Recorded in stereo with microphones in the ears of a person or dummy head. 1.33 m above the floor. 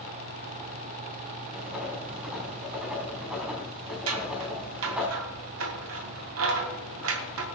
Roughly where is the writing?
Centre.